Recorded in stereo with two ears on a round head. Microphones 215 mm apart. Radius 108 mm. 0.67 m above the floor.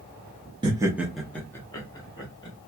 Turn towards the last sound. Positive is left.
turn(degrees=20)  # may be behind; listen again after turning